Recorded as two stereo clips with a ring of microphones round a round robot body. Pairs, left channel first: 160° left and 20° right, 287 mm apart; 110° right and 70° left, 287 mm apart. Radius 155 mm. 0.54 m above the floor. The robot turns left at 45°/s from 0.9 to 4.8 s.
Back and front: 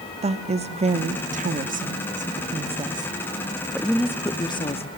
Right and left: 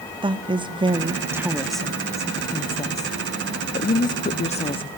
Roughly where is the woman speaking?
Ahead.